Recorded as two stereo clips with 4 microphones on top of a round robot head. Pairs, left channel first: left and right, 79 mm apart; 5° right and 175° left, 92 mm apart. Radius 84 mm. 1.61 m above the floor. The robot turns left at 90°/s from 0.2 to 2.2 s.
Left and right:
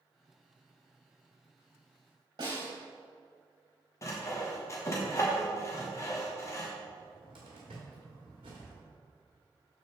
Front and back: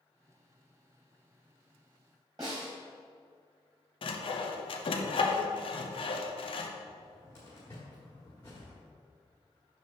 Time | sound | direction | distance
2.4 | a snare drum | 120° right | 3 m
4.0 | sawing | 25° left | 0.8 m
6.9 | a cupboard door | 75° right | 1.4 m